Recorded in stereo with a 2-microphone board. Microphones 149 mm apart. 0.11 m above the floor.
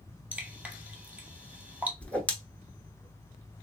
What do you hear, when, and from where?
0.3 s dripping: 10° right (ahead or behind), 0.6 m
2.0 s a whoosh: 10° left (ahead or behind), 0.6 m